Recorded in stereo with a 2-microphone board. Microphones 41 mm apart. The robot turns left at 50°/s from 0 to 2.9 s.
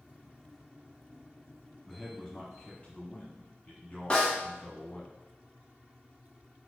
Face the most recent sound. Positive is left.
turn(degrees=25)  # may be behind; listen again after turning